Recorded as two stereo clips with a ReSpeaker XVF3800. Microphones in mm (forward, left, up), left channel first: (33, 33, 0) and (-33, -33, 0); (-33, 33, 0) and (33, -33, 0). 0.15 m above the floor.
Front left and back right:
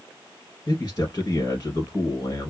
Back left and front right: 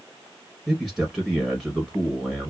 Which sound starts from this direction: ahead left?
A man speaking, at 0.7 s.